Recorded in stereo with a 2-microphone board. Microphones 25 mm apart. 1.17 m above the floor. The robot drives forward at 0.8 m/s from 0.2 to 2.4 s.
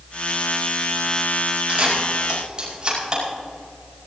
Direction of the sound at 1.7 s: 40° right (ahead or behind).